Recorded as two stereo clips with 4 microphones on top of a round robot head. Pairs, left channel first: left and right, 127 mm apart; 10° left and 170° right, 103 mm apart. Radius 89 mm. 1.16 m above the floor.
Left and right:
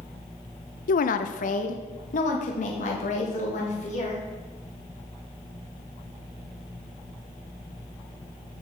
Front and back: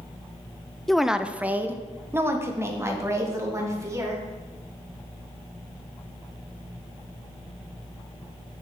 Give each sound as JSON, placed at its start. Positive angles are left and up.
{"t": 0.9, "sound": "a woman speaking", "azimuth_deg": 95, "distance_m": 0.5}